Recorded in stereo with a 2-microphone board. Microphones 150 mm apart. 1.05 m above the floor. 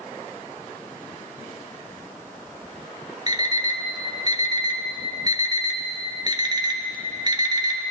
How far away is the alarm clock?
About 0.8 m.